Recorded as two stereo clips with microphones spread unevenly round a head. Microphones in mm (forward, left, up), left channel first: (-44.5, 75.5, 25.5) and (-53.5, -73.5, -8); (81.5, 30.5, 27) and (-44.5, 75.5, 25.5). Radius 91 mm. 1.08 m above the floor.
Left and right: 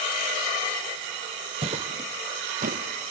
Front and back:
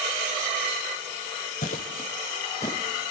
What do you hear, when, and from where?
1.6 s footsteps: 30° right, 1.6 m; by 2.8 s 90° right, 1.3 m